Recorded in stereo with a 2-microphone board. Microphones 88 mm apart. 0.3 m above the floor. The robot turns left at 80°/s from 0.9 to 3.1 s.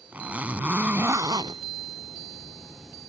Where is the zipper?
20° right; by 1.6 s 75° right.